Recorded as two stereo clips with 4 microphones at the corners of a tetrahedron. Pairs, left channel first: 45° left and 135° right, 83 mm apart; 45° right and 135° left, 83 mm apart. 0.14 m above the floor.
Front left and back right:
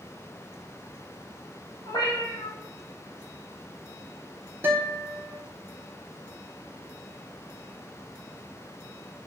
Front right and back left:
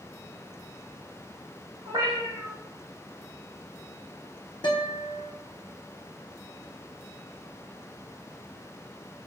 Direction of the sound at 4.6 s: 70° right.